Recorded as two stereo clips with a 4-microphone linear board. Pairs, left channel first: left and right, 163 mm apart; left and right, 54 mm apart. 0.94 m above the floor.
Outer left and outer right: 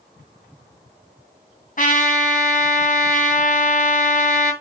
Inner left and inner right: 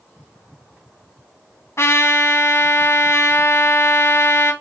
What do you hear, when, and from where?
1.8 s a trumpet: 55° left (ahead or behind), 2.5 m